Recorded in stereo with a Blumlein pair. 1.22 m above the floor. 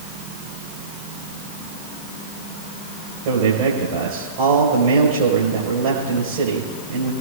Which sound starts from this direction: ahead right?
A man speaking, at 3.2 s.